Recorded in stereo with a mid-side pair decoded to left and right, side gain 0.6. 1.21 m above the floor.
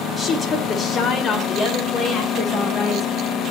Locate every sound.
0.2 s a woman speaking: 30° left, 4.5 m; by 3.1 s 40° left, 6.5 m